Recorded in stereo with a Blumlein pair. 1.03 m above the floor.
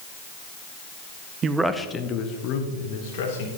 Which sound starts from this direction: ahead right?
A man speaking, at 1.4 s.